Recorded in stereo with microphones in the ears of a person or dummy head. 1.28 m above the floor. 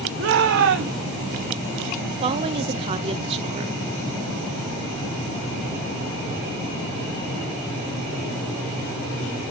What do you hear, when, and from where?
0.2 s a shout: 70° right (ahead or behind), 1.4 m
2.2 s a woman speaking: 30° right (ahead or behind), 0.6 m